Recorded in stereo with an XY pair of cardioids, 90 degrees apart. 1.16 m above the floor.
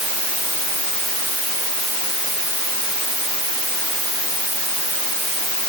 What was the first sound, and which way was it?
Only background noise.